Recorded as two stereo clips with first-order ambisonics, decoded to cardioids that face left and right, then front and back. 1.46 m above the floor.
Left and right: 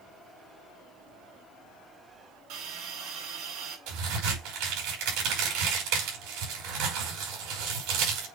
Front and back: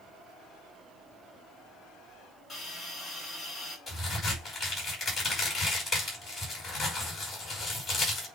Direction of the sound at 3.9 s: 85° right.